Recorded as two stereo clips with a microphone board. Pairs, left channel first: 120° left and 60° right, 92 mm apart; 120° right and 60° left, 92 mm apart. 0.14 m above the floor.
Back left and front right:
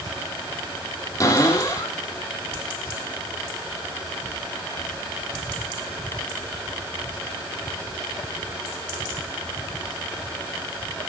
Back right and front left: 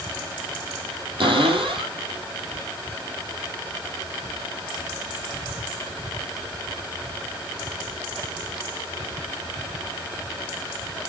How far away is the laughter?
I don't hear laughter.